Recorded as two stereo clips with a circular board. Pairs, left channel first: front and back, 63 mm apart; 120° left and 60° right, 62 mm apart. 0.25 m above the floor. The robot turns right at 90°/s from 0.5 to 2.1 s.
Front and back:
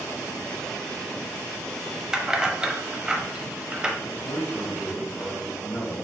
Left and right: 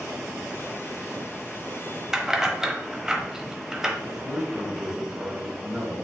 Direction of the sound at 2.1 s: 130° right.